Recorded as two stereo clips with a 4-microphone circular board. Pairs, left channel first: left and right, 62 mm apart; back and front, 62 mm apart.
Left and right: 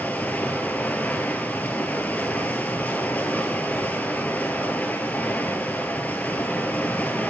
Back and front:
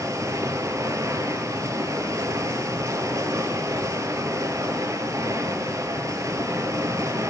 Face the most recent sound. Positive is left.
turn(degrees=25)